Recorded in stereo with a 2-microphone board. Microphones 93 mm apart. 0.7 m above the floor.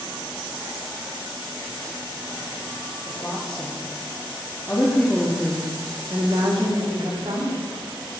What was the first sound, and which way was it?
A woman speaking, 45° left (ahead or behind).